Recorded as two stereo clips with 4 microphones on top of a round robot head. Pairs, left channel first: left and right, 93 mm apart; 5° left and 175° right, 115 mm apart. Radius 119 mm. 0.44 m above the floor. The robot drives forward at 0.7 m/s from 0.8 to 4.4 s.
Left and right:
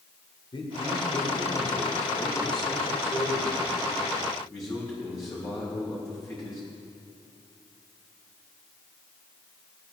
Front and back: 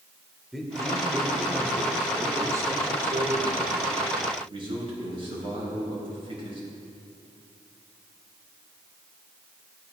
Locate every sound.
0.5 s a man speaking: 95° left, 2.5 m; by 6.6 s 145° left, 3.5 m